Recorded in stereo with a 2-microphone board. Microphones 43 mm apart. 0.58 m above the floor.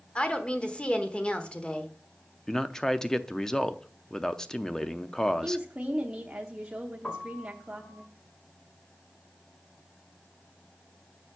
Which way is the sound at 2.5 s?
10° left (ahead or behind).